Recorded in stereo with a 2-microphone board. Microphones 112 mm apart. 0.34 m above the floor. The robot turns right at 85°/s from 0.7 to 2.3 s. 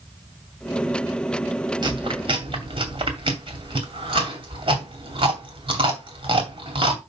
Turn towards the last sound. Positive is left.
turn(degrees=-50)  # may be behind; listen again after turning